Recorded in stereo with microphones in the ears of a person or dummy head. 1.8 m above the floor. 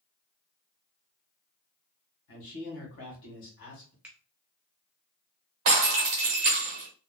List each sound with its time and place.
2.3 s a man speaking: 60° left (ahead or behind), 1.6 m
4.0 s a finger snap: 10° right (ahead or behind), 0.6 m
5.7 s breaking glass: 20° right (ahead or behind), 1.0 m